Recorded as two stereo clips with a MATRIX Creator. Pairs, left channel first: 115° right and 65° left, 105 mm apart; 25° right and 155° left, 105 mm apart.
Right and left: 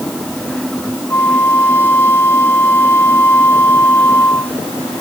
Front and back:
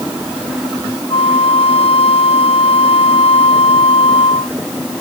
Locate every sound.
1.1 s a flute: 45° right